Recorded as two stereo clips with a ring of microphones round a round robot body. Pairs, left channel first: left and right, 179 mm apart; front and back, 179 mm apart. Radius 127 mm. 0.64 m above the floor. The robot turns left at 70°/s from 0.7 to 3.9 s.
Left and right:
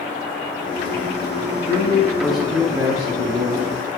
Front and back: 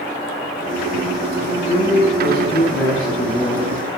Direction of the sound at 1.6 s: 45° left.